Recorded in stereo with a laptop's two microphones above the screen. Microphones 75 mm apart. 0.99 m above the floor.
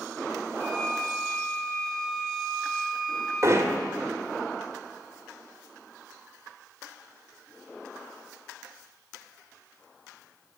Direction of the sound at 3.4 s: 50° right (ahead or behind).